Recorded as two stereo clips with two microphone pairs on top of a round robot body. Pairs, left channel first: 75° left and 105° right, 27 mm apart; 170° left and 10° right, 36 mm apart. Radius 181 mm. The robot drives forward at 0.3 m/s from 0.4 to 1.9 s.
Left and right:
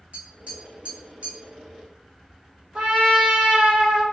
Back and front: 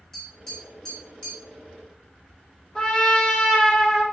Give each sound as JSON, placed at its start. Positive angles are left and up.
{"t": 0.1, "sound": "tapping", "azimuth_deg": -105, "distance_m": 1.4}
{"t": 2.8, "sound": "a trumpet", "azimuth_deg": -110, "distance_m": 0.9}